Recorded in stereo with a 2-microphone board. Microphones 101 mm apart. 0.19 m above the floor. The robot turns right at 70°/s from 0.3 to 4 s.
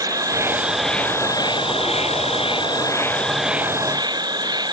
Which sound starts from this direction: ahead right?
An insect, at 0.0 s.